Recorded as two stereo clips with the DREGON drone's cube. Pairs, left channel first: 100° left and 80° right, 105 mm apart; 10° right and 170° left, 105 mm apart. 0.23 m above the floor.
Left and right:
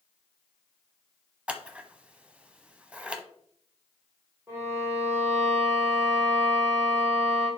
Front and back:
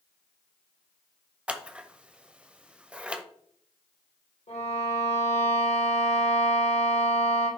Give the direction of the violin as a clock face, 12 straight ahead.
12 o'clock.